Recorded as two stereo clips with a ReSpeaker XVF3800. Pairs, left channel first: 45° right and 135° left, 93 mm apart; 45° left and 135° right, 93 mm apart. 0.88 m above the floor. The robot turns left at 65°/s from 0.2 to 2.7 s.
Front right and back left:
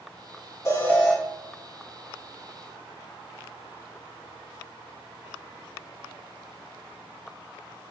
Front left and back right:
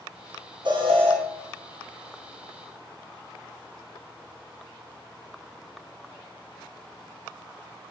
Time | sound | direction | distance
0.7 | an alarm | 100° right | 0.8 m